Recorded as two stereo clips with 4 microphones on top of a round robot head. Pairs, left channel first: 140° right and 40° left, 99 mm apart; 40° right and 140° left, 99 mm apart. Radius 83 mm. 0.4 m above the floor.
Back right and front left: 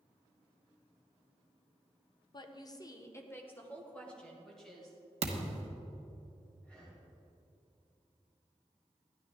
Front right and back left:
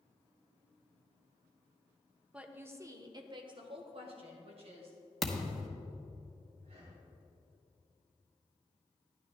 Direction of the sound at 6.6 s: 145° left.